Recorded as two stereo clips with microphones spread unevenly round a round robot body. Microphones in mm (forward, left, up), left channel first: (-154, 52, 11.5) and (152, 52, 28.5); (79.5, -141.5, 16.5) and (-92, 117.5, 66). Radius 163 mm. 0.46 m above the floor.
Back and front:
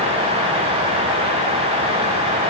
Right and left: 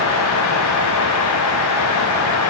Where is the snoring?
No snoring in this recording.